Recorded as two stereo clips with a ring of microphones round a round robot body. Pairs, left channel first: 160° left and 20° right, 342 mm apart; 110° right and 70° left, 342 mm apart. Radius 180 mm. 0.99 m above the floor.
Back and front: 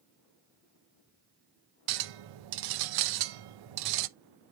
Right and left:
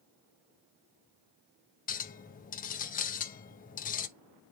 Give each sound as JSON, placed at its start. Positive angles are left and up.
{"t": 1.9, "sound": "a clink", "azimuth_deg": -45, "distance_m": 0.7}